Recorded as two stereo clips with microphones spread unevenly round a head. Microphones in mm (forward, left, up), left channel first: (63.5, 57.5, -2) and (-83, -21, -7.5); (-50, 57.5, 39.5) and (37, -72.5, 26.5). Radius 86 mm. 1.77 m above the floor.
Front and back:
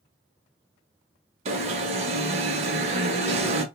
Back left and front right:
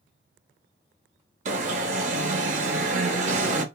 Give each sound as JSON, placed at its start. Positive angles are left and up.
{"t": 1.4, "sound": "an alarm", "azimuth_deg": -100, "distance_m": 0.7}